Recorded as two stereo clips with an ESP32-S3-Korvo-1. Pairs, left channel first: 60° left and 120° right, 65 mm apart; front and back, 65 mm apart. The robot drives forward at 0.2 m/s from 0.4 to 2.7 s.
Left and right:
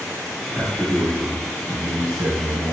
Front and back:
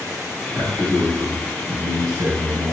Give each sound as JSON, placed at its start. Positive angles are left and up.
{"t": 0.5, "sound": "a man speaking", "azimuth_deg": 160, "distance_m": 1.3}